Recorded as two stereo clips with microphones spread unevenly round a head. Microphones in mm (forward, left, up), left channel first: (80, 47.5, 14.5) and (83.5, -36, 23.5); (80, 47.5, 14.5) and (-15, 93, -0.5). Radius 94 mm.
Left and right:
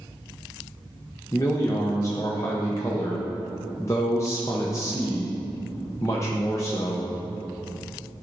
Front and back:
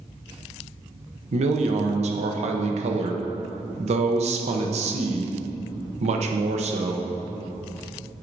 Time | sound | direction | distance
1.3 | a man speaking | 160° left | 0.7 m